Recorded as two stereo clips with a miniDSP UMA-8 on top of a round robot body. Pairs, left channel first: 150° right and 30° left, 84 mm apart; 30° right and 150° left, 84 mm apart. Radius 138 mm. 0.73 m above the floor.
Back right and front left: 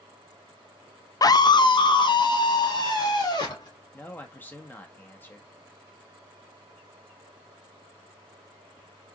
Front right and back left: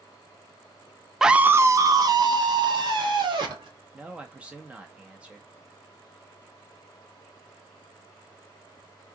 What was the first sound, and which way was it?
A scream, 125° right.